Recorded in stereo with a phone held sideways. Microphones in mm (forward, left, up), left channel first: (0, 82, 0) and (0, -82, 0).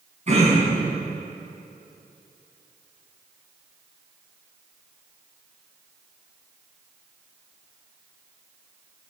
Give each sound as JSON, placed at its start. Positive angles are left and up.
{"t": 0.3, "sound": "throat clearing", "side_deg": -45, "distance_m": 4.0}